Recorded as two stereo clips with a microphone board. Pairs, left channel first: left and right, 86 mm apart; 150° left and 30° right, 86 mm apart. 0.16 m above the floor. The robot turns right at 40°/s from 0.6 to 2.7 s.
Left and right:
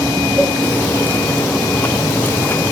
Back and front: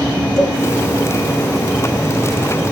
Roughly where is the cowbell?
Behind.